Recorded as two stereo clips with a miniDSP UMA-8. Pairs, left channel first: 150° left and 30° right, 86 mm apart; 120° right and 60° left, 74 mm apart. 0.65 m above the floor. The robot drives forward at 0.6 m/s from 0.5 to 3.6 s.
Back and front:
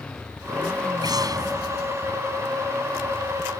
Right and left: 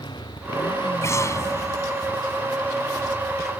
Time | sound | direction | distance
0.0 | a motorcycle | 130° right | ?
1.0 | an explosion | 70° right | ?